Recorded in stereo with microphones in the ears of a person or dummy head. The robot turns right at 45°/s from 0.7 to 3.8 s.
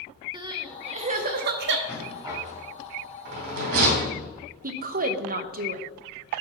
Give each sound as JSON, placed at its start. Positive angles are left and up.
{"t": 0.3, "sound": "crying", "side_deg": -25, "distance_m": 0.9}
{"t": 1.9, "sound": "a rattle", "side_deg": -5, "distance_m": 2.5}
{"t": 4.6, "sound": "a woman speaking", "side_deg": -45, "distance_m": 0.9}